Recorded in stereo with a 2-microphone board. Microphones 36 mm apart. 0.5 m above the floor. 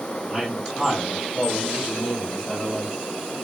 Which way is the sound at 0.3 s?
15° right (ahead or behind).